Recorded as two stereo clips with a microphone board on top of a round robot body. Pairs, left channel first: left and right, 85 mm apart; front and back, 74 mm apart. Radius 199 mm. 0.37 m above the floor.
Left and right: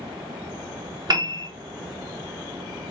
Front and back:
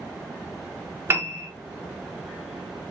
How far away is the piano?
About 1.2 m.